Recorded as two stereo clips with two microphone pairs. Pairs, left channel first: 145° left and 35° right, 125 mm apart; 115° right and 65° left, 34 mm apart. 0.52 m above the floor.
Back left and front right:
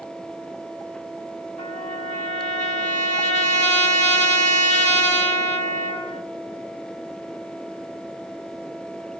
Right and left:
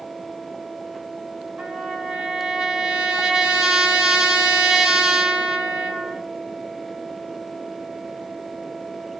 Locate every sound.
1.6 s a trumpet: 135° left, 1.1 m